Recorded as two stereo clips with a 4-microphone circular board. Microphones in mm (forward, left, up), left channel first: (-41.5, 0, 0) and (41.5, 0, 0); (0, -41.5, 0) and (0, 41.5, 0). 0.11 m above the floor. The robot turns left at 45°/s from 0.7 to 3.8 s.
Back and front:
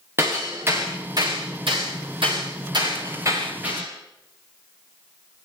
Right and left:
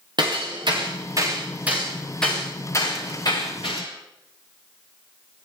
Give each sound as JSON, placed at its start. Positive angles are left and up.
{"t": 0.2, "sound": "hammering", "azimuth_deg": 60, "distance_m": 8.0}